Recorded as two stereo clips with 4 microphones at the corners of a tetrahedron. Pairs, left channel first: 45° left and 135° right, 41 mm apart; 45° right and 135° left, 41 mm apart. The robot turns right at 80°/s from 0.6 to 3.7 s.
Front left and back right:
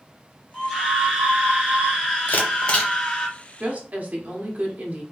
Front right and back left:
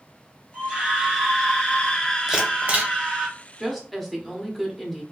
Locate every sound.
0.5 s a scream: 150° left, 0.8 m; by 3.3 s 5° left, 0.8 m
2.3 s a camera shutter: 60° left, 0.9 m; by 2.9 s 110° left, 0.9 m
3.6 s a woman speaking: 140° right, 0.9 m; by 5.0 s 135° right, 0.9 m